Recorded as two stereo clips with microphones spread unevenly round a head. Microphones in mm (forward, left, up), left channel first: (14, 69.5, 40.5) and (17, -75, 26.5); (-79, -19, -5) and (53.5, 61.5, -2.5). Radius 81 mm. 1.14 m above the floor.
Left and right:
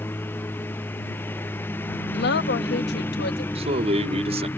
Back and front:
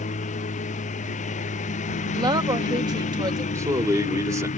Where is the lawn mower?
170° left.